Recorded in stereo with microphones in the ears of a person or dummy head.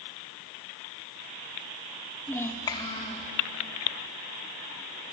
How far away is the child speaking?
About 0.8 m.